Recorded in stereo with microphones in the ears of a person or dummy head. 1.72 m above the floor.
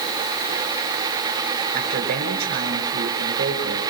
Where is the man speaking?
50° right (ahead or behind), 6 m.